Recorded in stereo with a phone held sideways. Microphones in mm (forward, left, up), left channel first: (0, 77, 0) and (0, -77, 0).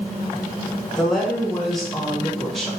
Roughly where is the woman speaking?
Centre.